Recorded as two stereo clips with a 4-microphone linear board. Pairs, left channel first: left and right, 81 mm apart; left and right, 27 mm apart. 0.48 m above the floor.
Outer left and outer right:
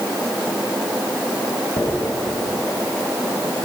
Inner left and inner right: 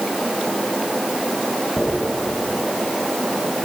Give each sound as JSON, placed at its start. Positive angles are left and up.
{"t": 1.8, "sound": "a dropped coin", "side_deg": 80, "distance_m": 1.5}